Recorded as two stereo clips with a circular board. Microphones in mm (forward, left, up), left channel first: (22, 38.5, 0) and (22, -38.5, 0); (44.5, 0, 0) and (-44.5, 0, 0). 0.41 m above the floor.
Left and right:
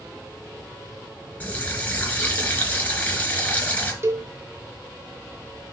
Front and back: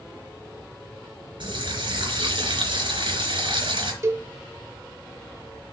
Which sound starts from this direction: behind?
A running tap, at 1.4 s.